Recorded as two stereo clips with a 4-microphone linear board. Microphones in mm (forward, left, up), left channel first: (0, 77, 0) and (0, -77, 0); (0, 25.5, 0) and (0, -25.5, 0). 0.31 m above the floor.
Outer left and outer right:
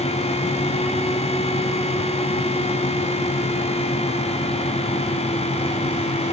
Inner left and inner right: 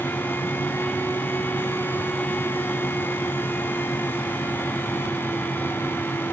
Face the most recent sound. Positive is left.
No sound to turn to.